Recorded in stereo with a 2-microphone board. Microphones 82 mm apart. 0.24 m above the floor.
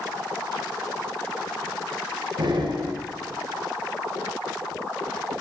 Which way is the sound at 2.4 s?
65° right (ahead or behind).